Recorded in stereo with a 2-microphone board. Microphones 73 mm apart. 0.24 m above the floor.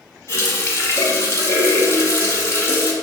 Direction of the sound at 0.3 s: 45° left (ahead or behind).